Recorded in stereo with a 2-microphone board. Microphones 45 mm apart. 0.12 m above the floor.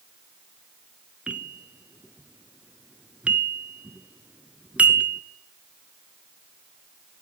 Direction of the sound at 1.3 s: 30° right (ahead or behind).